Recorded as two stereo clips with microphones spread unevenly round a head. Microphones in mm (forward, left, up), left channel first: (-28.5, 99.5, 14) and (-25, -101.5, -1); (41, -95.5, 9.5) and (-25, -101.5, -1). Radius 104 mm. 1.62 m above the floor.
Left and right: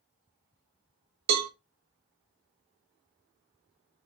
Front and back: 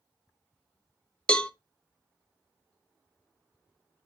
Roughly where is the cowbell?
Right.